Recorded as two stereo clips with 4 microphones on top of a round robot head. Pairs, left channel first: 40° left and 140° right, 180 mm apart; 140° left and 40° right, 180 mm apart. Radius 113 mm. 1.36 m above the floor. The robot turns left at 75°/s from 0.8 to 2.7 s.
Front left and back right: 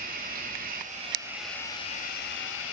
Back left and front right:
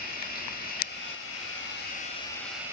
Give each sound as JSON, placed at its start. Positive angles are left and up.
{"t": 0.0, "sound": "running water", "azimuth_deg": 180, "distance_m": 8.0}